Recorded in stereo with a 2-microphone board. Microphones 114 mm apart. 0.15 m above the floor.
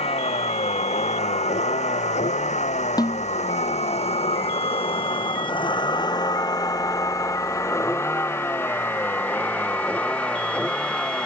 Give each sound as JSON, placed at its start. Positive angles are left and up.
{"t": 0.0, "sound": "a vehicle", "side_deg": 60}
{"t": 3.0, "sound": "a snare drum", "side_deg": 35}